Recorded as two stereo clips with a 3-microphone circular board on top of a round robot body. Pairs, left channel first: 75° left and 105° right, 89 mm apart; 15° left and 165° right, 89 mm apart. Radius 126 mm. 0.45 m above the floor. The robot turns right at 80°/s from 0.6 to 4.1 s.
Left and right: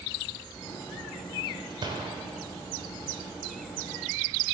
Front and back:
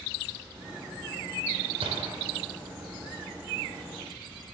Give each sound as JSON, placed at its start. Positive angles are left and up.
{"t": 1.8, "sound": "a gunshot", "azimuth_deg": -145, "distance_m": 1.3}